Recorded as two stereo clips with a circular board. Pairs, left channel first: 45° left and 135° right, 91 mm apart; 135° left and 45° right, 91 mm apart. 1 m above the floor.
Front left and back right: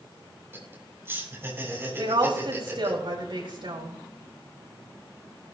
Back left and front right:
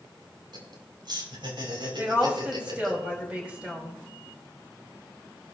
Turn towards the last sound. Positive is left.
turn(degrees=-120)